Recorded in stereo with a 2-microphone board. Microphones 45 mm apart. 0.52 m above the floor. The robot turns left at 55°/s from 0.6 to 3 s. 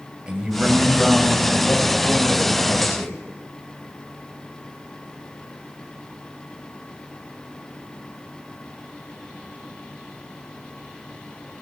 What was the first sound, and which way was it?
A man speaking, 160° right.